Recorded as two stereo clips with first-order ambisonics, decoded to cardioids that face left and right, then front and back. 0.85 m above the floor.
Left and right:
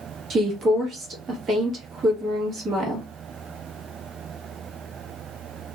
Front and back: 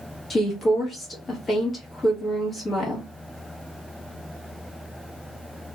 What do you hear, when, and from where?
0.3 s a woman speaking: 55° right, 1.1 m